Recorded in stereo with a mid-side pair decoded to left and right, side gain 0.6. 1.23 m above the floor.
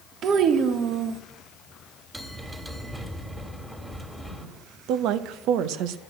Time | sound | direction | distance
0.2 | a child speaking | 55° right | 1.2 m
2.1 | a bell | 15° right | 2.5 m
4.9 | a woman speaking | 70° right | 0.9 m